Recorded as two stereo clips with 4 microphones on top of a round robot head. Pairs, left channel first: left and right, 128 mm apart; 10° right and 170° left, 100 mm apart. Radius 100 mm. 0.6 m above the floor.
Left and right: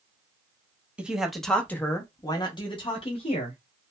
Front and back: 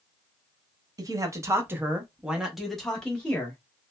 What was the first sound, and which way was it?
A man speaking, 165° right.